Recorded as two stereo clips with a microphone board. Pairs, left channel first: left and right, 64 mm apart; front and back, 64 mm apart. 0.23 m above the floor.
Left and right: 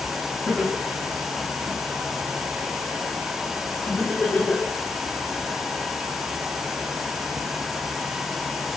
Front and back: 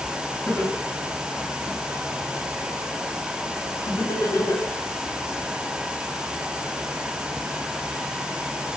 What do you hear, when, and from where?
0.5 s laughter: 5° left, 1.6 m; by 4.7 s 25° left, 3.5 m